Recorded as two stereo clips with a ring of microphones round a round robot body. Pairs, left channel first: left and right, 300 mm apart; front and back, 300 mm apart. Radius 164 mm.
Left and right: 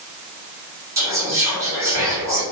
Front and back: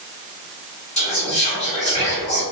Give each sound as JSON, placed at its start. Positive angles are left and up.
{"t": 1.0, "sound": "whispering", "azimuth_deg": -25, "distance_m": 1.4}